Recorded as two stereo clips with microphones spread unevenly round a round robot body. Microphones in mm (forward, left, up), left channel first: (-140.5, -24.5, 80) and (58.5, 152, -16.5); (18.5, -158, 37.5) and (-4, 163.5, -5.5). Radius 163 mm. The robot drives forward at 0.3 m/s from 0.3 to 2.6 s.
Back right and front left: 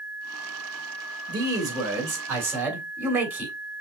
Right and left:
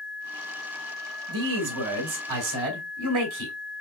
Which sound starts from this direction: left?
A man speaking, at 1.3 s.